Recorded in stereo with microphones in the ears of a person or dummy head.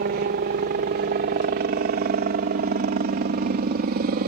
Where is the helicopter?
40° right (ahead or behind).